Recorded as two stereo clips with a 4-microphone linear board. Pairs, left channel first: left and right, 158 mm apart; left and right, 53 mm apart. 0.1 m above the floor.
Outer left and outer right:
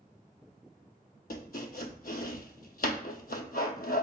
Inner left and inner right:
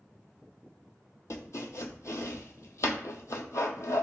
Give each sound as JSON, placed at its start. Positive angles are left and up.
{"t": 1.3, "sound": "chopping", "side_deg": 70, "distance_m": 0.6}